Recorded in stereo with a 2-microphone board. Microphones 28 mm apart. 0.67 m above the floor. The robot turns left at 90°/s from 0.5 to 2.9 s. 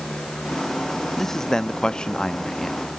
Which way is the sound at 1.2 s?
5° left (ahead or behind).